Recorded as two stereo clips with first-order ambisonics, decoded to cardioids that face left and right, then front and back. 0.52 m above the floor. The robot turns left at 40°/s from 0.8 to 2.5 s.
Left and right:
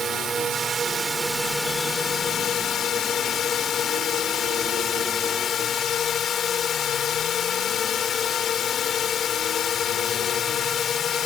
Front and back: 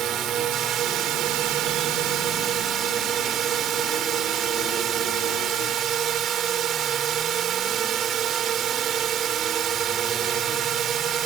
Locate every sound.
0.0 s a drone: 150° right; by 11.3 s 140° left